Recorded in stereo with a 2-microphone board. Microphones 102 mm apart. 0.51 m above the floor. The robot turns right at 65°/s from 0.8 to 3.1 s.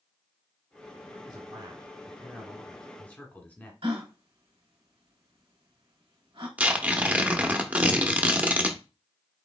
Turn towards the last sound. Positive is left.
turn(degrees=-15)  # may be behind; listen again after turning